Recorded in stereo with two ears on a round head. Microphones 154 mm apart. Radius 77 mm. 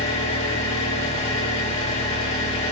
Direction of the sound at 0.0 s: 40° left (ahead or behind).